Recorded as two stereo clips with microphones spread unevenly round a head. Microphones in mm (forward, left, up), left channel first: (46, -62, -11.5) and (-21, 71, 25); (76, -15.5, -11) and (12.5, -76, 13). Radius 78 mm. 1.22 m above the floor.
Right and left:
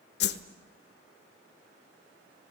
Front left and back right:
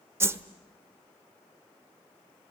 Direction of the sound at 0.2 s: 90° right.